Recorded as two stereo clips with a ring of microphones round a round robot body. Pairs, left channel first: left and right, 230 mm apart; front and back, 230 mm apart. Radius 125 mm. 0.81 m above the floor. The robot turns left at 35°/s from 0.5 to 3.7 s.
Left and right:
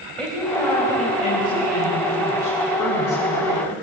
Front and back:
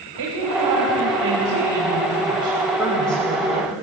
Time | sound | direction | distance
0.2 | a woman speaking | 175° left | 4 m